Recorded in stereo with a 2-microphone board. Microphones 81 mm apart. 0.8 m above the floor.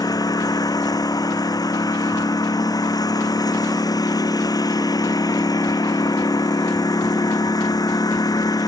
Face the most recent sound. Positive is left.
turn(degrees=55)  # may be behind; listen again after turning